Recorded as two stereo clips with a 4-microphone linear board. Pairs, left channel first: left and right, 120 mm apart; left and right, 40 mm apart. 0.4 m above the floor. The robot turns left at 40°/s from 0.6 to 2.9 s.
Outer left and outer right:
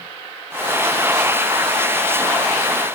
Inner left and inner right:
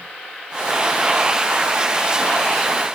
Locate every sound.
Only background noise.